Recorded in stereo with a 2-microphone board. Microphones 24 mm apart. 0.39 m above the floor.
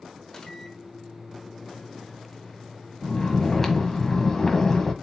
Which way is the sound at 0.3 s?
25° left (ahead or behind).